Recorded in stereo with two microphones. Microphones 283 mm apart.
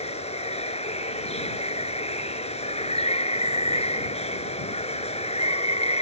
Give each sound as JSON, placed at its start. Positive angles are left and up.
{"t": 0.0, "sound": "running water", "side_deg": 20}